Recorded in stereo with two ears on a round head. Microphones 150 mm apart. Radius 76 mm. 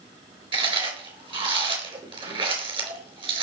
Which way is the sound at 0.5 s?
30° right (ahead or behind).